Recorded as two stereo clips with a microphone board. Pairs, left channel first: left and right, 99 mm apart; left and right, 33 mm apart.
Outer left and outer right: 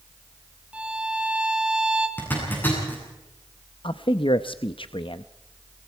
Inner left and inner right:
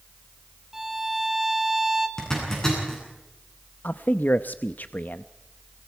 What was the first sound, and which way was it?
A violin, 10° right (ahead or behind).